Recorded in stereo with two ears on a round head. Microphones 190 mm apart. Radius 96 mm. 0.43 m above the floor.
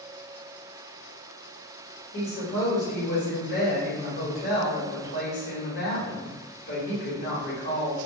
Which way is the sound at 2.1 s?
50° left (ahead or behind).